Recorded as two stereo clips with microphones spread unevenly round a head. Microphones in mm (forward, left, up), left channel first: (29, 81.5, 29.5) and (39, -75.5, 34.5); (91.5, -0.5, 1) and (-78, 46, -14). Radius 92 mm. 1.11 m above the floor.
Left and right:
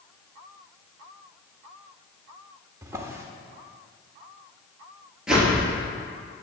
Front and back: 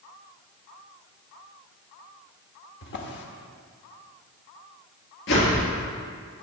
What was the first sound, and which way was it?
A drawer, 15° right.